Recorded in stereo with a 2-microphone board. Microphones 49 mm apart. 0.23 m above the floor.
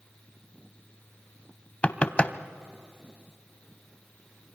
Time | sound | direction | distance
1.8 | knocking | 25° left (ahead or behind) | 0.7 m